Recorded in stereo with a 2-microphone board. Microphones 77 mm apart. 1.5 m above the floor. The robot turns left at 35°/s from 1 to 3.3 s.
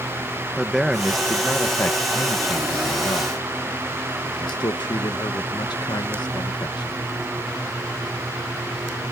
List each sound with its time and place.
0.6 s a man speaking: 175° right; by 7.0 s 105° left